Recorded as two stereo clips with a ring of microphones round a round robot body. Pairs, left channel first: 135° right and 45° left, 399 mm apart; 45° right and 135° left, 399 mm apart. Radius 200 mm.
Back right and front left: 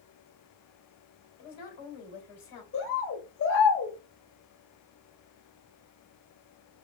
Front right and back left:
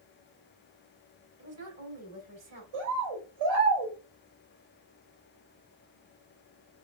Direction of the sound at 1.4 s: 170° right.